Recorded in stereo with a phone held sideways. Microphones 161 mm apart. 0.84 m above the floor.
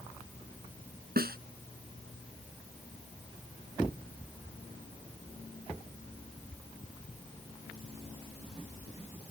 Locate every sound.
1.2 s a snare drum: 70° right (ahead or behind)